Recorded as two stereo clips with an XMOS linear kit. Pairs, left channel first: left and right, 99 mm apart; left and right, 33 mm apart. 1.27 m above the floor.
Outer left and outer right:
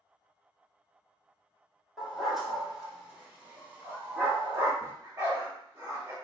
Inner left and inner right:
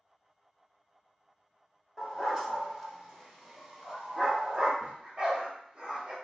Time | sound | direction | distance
2.0 | a dog barking | 5° left (ahead or behind) | 1.4 m
4.8 | a dog barking | 30° right (ahead or behind) | 1.1 m